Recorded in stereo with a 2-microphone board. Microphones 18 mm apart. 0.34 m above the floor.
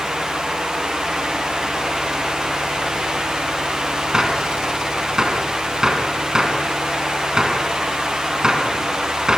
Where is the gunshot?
40° right (ahead or behind), 3 m.